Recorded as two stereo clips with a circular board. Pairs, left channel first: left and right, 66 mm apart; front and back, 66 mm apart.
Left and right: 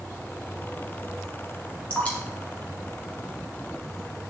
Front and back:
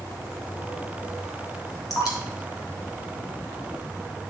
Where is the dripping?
20° left, 2 m.